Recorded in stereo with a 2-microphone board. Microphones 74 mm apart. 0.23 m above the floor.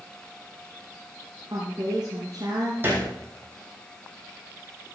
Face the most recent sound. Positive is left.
turn(degrees=-30)  # may be behind; listen again after turning